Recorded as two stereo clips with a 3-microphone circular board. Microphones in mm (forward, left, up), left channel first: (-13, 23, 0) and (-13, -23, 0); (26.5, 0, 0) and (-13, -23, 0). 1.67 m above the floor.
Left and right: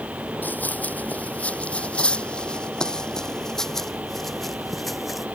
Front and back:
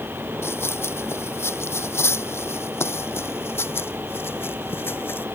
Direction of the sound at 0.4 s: 45° left.